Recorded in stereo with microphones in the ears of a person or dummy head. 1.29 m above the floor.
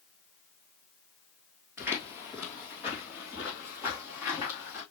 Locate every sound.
1.8 s footsteps: 15° right (ahead or behind), 1.8 m